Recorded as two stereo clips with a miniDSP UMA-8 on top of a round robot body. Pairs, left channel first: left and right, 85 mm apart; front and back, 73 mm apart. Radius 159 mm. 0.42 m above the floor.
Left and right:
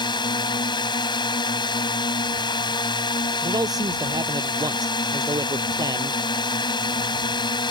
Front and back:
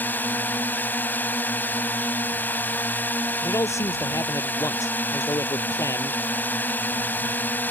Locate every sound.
0.0 s a drone: 65° left
3.4 s a man speaking: 45° right